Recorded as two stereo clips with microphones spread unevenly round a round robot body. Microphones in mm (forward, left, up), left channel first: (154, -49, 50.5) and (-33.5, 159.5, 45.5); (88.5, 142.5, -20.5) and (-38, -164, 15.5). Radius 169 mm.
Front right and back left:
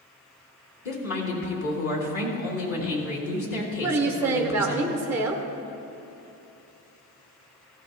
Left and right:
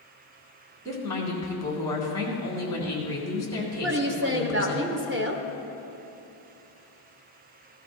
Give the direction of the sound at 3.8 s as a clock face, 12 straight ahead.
5 o'clock.